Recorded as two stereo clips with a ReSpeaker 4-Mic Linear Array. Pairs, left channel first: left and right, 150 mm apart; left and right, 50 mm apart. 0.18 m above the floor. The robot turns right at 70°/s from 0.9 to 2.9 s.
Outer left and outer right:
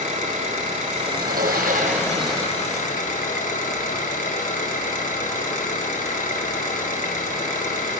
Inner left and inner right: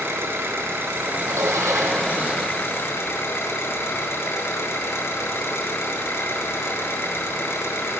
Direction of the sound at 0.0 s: 60° right.